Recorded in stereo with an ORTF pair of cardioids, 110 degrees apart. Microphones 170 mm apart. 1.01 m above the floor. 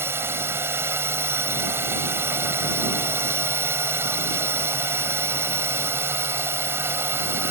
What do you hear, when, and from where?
0.0 s a drone: 15° right